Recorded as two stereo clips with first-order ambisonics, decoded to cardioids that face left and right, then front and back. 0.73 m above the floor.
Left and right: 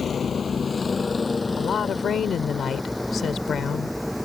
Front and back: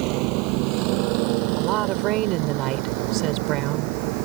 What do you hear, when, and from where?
0.0 s a vehicle: 155° left; by 4.2 s straight behind
1.6 s a woman speaking: 150° left